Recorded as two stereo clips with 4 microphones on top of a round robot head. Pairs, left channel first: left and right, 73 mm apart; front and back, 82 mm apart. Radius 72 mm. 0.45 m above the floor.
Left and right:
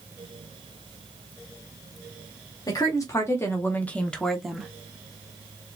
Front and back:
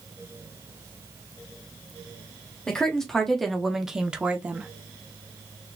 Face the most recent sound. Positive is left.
turn(degrees=-150)